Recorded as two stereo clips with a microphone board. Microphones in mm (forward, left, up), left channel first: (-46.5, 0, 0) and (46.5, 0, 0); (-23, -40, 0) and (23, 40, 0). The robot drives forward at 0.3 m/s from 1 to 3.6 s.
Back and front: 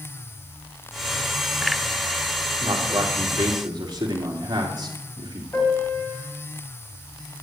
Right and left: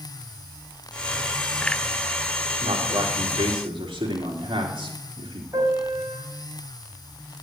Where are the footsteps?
No footsteps in this recording.